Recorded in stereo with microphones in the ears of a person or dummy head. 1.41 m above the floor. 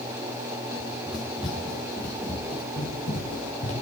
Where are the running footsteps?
5° right (ahead or behind), 2.5 m; by 3.7 s 40° left (ahead or behind), 2 m.